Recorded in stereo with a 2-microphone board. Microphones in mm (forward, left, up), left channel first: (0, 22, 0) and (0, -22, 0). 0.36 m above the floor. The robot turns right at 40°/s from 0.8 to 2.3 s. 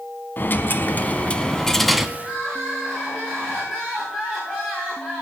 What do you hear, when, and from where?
0.4 s a dropped coin: 135° left, 0.7 m; by 2.1 s 175° right, 0.7 m
2.2 s crying: 15° left (ahead or behind), 6 m; by 5.2 s 10° left (ahead or behind), 6 m